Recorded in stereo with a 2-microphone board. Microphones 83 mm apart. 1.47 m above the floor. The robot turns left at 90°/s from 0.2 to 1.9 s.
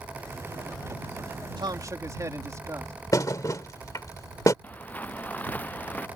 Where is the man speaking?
110° right; by 2.9 s 140° right.